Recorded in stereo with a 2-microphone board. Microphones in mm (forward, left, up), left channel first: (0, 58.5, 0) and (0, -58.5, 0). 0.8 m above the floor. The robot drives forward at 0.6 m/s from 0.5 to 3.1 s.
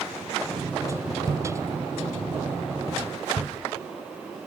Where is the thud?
30° right (ahead or behind), 0.7 m; by 3.5 s 20° right (ahead or behind), 1.0 m.